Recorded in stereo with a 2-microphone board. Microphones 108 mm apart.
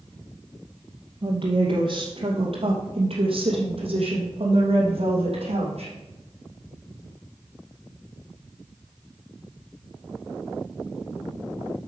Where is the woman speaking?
55° right (ahead or behind), 2 m; by 5.9 s 75° right (ahead or behind), 4 m.